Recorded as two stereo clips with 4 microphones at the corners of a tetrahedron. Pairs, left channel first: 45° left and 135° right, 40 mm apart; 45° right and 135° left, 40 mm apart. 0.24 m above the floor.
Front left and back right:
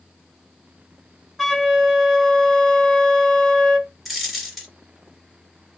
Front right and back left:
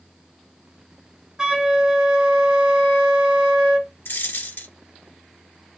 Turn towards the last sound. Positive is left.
turn(degrees=-45)